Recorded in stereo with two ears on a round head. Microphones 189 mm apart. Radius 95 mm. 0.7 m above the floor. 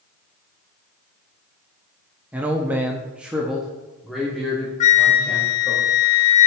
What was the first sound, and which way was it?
A man speaking, 5° right (ahead or behind).